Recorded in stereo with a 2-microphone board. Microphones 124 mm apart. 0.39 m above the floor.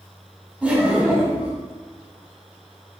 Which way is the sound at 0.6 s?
10° right (ahead or behind).